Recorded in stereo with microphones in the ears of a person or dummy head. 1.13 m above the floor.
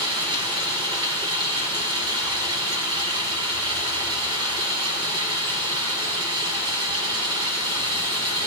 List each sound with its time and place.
0.0 s running water: 25° right (ahead or behind), 5 m